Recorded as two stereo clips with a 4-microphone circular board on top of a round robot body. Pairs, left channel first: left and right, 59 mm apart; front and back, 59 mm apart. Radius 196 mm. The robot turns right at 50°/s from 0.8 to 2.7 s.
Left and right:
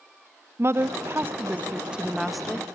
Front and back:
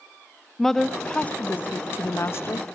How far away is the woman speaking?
About 1.0 m.